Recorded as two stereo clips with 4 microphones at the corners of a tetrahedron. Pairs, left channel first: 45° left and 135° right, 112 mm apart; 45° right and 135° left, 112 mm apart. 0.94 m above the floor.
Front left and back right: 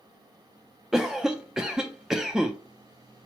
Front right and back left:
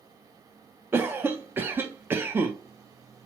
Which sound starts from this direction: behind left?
A cough, at 0.9 s.